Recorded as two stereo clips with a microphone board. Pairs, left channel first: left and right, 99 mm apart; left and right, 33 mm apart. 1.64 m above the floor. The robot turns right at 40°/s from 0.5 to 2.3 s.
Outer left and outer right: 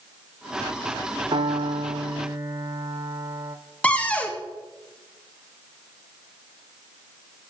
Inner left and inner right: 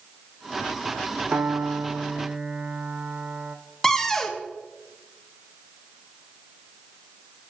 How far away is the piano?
About 1.0 m.